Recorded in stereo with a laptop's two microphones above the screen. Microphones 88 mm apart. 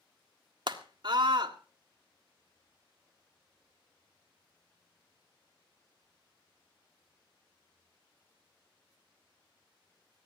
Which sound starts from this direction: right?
A scream, at 0.7 s.